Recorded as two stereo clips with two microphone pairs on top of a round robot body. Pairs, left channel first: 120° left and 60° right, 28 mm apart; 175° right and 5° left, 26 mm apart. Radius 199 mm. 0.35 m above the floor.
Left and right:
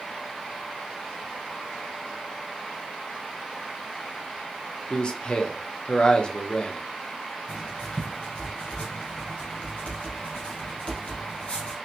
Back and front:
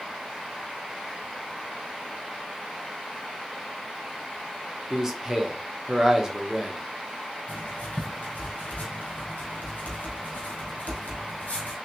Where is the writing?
165° left, 1.1 m.